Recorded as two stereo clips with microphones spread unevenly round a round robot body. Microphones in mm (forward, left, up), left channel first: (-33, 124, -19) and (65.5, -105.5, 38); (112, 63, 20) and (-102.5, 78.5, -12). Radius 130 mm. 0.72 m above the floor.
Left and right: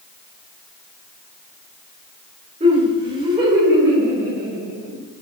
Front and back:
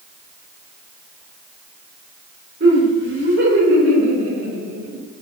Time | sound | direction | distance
2.6 | laughter | 140° right | 2.5 m